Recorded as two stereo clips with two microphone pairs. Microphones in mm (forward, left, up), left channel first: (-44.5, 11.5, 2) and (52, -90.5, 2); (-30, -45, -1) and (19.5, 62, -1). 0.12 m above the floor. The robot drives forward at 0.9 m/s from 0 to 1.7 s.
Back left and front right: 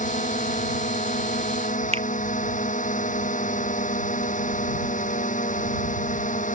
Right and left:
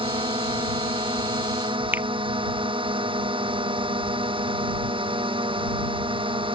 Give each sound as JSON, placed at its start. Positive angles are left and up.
{"t": 0.0, "sound": "a drone", "azimuth_deg": 105}
{"t": 1.9, "sound": "a finger snap", "azimuth_deg": -10}